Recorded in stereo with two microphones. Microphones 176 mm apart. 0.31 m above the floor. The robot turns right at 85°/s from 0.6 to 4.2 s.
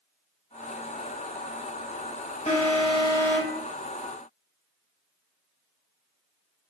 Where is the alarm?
90° left, 0.8 m; by 3.6 s 175° right, 0.8 m.